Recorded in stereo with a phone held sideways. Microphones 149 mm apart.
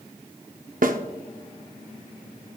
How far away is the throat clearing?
No throat clearing in this recording.